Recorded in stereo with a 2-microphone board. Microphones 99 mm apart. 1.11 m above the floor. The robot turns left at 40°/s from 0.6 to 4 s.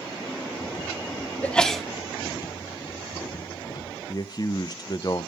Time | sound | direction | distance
1.4 | a sneeze | 15° left (ahead or behind) | 1.1 m
4.1 | a man speaking | 40° left (ahead or behind) | 0.6 m